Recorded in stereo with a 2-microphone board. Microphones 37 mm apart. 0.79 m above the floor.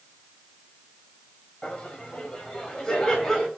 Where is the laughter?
25° left (ahead or behind), 4.5 m; by 3.5 s 15° left (ahead or behind), 4.5 m.